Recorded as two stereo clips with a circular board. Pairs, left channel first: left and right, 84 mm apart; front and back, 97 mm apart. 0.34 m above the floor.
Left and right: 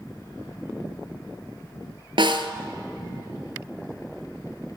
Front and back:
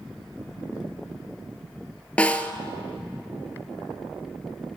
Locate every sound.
2.2 s a snare drum: 75° right, 1.0 m